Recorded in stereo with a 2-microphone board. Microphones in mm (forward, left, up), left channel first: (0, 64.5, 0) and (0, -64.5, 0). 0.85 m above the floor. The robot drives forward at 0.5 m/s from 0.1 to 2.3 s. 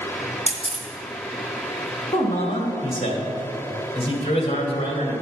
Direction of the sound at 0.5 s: 60° right (ahead or behind).